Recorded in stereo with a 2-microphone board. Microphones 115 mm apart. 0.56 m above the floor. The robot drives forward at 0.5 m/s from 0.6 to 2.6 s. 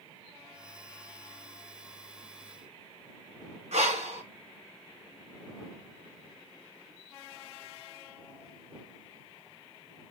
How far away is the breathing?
About 1.6 m.